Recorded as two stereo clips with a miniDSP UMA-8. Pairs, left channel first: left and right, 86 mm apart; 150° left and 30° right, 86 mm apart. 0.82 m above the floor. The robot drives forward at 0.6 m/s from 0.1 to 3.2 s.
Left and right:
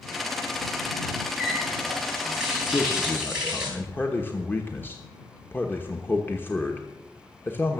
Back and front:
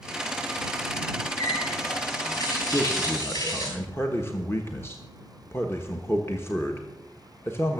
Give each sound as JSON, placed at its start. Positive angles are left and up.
{"t": 1.4, "sound": "a running tap", "azimuth_deg": -170, "distance_m": 6.5}
{"t": 2.7, "sound": "a man speaking", "azimuth_deg": 95, "distance_m": 1.1}